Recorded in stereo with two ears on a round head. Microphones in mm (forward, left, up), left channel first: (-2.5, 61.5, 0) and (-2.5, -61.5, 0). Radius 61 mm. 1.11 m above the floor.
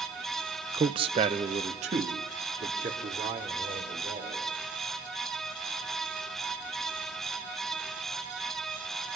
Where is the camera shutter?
I don't hear a camera shutter.